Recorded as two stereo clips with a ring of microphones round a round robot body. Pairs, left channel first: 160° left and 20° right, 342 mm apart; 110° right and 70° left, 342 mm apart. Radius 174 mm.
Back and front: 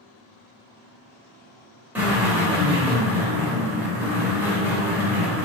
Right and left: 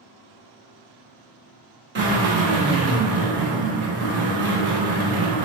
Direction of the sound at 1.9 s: 60° left.